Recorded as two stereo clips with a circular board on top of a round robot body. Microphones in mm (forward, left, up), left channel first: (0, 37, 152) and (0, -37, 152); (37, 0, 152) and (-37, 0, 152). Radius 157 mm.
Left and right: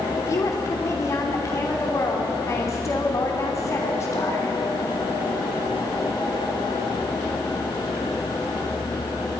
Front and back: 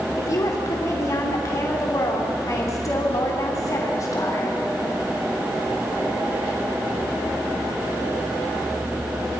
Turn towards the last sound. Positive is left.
turn(degrees=45)